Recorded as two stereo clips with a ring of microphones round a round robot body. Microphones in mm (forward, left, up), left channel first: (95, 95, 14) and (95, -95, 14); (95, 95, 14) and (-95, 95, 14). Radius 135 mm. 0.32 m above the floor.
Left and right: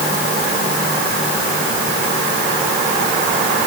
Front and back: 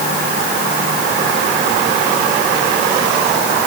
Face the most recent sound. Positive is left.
No sound to turn to.